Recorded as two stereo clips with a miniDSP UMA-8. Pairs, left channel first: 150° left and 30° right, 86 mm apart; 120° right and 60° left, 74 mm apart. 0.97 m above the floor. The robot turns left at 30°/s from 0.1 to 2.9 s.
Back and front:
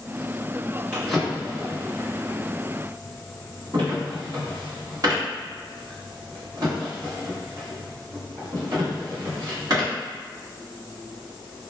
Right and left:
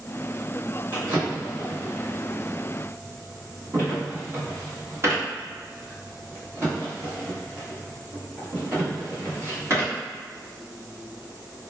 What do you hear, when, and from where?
0.9 s a drawer: 70° left, 1.2 m; by 9.9 s 10° left, 1.2 m